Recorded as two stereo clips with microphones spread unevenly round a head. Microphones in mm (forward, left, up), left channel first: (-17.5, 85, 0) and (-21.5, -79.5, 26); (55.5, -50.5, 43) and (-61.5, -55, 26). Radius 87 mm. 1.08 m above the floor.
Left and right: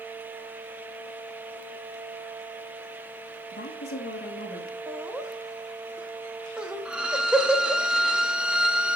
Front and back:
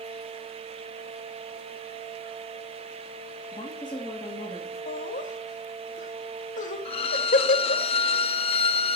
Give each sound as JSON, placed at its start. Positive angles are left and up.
{"t": 3.5, "sound": "a woman speaking", "azimuth_deg": 65, "distance_m": 2.5}
{"t": 4.9, "sound": "laughter", "azimuth_deg": -5, "distance_m": 1.3}
{"t": 6.8, "sound": "a violin", "azimuth_deg": -15, "distance_m": 0.6}